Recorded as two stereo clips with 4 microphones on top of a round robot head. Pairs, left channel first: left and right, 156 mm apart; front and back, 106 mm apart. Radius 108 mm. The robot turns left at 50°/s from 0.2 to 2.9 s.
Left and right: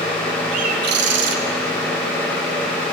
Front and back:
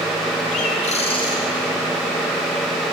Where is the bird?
35° right, 1.0 m; by 1.4 s 75° right, 1.0 m.